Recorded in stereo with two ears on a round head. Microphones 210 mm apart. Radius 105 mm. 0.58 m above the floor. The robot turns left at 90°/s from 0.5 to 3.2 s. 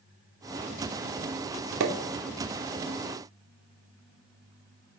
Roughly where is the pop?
Right.